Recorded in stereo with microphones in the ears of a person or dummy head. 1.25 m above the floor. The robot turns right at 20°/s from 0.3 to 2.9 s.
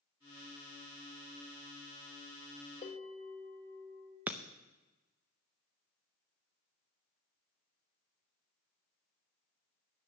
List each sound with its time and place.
2.8 s a bell: 35° left (ahead or behind), 2.5 m
4.3 s breaking glass: 10° right (ahead or behind), 0.6 m